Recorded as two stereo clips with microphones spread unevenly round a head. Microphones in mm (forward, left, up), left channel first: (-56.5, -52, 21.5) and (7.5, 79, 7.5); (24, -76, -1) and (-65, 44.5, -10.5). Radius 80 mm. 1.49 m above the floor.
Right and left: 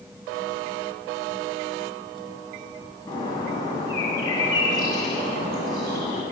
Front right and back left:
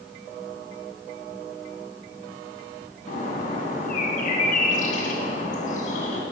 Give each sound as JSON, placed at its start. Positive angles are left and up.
{"t": 3.1, "sound": "a bird", "azimuth_deg": -55, "distance_m": 2.0}